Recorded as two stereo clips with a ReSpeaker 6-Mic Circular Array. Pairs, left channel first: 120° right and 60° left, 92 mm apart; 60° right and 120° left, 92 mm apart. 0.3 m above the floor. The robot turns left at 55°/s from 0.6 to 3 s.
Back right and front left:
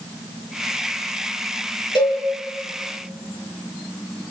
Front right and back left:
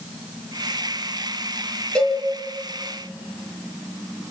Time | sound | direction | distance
1.9 | a cowbell | 140° right | 3.5 m